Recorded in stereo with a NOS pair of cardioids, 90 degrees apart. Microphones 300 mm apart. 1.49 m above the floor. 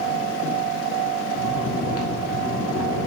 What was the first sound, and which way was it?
Snoring, 50° left.